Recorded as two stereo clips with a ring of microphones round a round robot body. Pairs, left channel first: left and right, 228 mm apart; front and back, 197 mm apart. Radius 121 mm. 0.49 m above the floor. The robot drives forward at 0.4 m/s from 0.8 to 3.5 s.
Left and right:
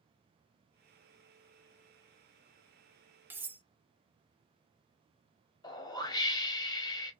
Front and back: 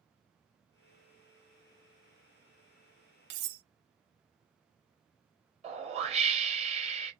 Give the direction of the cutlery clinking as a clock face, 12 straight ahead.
6 o'clock.